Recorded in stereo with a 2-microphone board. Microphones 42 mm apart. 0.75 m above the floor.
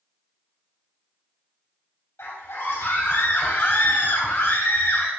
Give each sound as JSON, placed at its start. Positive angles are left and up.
{"t": 2.2, "sound": "a scream", "side_deg": 75, "distance_m": 3.0}